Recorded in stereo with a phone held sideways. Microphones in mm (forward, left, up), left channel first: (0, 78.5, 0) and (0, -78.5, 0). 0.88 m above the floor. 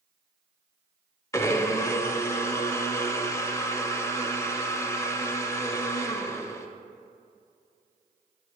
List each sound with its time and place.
1.3 s a blender: 20° left (ahead or behind), 0.6 m